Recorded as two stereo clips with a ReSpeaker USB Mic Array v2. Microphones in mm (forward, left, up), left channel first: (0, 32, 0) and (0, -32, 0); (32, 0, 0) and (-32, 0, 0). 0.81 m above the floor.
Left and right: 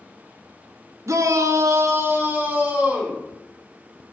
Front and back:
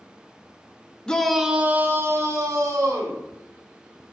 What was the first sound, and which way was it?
A shout, 75° right.